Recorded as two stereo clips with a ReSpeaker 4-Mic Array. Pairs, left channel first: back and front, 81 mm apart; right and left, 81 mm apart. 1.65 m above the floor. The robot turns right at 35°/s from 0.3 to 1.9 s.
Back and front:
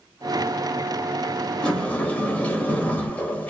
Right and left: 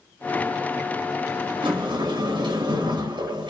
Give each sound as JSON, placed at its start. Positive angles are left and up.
{"t": 1.6, "sound": "a sliding door", "azimuth_deg": 100, "distance_m": 0.8}